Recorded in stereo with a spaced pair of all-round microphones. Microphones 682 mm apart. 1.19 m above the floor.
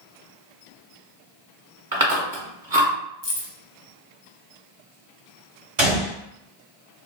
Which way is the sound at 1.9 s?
30° right (ahead or behind).